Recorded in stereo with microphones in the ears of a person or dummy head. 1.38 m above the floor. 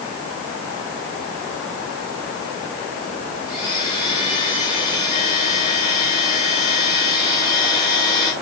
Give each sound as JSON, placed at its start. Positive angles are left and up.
{"t": 3.5, "sound": "a blender", "side_deg": 25, "distance_m": 5.0}